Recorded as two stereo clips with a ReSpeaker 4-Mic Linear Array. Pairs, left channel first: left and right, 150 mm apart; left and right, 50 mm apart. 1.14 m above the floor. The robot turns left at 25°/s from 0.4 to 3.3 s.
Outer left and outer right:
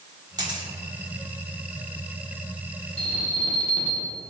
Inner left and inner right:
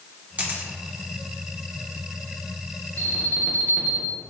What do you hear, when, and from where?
0.4 s a camera shutter: 30° right (ahead or behind), 1.4 m; by 0.7 s 35° right (ahead or behind), 1.4 m
3.0 s an alarm: 40° left (ahead or behind), 1.5 m; by 4.2 s 35° left (ahead or behind), 1.5 m